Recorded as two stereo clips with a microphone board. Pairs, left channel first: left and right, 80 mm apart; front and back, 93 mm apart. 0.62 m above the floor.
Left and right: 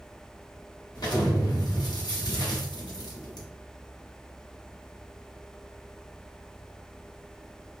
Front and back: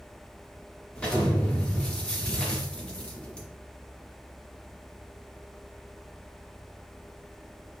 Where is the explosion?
80° left, 1.1 m.